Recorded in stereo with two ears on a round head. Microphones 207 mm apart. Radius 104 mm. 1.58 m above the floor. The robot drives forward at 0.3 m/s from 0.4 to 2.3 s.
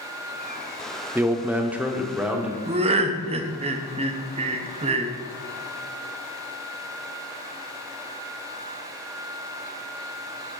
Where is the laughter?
25° right (ahead or behind), 0.7 m.